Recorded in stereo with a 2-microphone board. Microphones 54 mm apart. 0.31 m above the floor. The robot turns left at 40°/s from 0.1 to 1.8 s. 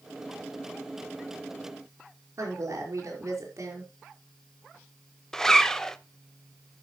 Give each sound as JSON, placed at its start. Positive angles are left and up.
{"t": 2.4, "sound": "a woman speaking", "side_deg": -65, "distance_m": 5.0}
{"t": 5.3, "sound": "a zipper", "side_deg": 10, "distance_m": 0.6}